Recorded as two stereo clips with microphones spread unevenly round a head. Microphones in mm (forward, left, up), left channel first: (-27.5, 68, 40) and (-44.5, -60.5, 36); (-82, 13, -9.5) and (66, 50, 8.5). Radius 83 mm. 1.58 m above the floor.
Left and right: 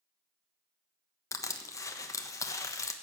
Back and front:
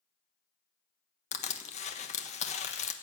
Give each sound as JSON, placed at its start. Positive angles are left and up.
{"t": 1.3, "sound": "crushing", "azimuth_deg": 145, "distance_m": 1.3}